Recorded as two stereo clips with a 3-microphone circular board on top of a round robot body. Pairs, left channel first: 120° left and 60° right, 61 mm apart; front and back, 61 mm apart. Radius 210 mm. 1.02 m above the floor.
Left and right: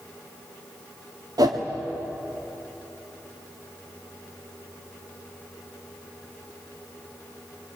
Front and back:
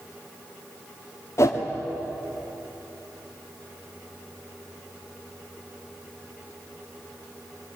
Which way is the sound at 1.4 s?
45° right.